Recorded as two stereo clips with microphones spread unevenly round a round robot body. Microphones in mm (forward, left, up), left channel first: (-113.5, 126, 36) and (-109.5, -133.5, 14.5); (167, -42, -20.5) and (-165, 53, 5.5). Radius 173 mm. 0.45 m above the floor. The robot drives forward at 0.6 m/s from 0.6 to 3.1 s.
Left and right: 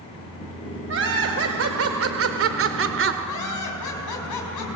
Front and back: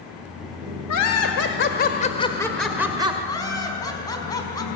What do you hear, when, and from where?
0.9 s laughter: 50° right, 1.4 m; by 3.1 s 115° right, 1.3 m
3.2 s laughter: 65° left, 4.5 m